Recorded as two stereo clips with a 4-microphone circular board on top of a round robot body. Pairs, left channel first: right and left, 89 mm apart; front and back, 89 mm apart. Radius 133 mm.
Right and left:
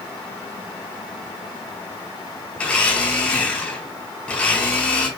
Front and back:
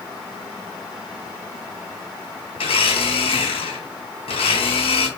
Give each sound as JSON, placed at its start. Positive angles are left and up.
{"t": 2.6, "sound": "a blender", "azimuth_deg": -15, "distance_m": 1.3}